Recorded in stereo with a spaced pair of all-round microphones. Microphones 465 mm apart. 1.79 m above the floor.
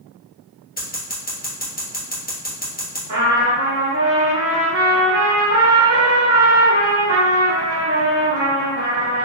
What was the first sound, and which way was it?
Scissors, 20° left (ahead or behind).